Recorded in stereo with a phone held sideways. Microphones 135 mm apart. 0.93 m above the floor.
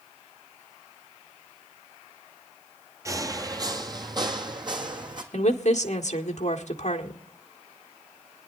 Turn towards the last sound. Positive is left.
turn(degrees=60)  # may be behind; listen again after turning